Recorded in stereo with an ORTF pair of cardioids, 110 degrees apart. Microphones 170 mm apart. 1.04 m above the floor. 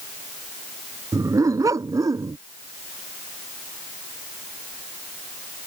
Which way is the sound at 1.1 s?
20° right.